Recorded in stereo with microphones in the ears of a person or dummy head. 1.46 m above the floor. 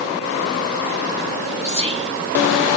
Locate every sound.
1.6 s whispering: 30° right (ahead or behind), 1.2 m